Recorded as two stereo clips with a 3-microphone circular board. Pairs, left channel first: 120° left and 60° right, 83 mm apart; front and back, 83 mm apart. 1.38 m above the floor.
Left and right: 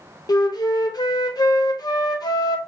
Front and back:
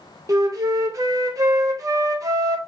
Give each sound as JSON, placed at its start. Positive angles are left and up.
{"t": 0.3, "sound": "a flute", "azimuth_deg": 145, "distance_m": 0.7}